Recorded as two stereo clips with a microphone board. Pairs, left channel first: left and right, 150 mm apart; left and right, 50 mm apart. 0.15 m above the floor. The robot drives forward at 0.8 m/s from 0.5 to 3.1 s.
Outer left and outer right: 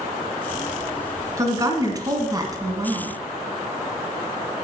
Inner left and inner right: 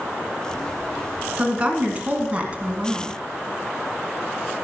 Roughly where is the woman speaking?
Right.